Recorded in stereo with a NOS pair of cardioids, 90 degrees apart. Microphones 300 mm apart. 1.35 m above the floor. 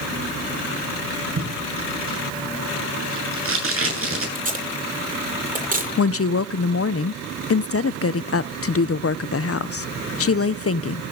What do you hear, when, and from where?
1.4 s tape being pulled: 45° right, 9.5 m
4.3 s tape being pulled: 25° right, 10 m
6.0 s a woman speaking: 50° left, 0.7 m